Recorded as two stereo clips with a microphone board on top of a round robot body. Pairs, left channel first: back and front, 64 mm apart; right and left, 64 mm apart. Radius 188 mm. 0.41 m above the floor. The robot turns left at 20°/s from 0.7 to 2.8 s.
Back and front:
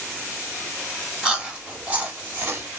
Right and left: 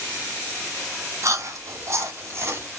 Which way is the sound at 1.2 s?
75° left.